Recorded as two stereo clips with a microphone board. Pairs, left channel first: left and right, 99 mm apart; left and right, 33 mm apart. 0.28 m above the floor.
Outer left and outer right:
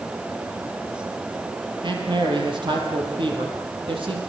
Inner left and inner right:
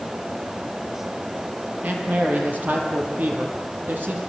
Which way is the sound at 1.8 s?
55° right (ahead or behind).